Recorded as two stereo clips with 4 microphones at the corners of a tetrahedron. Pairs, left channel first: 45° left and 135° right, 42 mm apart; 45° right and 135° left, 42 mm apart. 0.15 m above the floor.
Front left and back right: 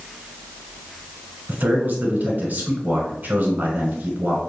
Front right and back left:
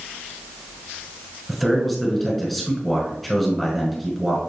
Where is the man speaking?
130° right, 1.4 m.